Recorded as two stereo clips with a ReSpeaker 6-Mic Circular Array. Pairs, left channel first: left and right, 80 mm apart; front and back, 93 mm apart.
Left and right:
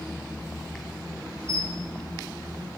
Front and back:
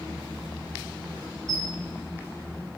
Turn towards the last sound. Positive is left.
turn(degrees=-140)